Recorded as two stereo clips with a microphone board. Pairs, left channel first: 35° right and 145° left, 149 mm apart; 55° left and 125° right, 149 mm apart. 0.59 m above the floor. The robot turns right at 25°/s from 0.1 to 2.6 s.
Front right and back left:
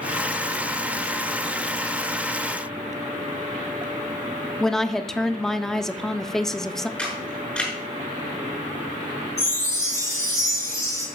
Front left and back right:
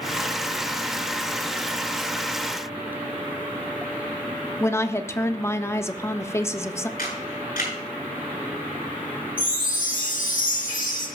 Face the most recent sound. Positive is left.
turn(degrees=35)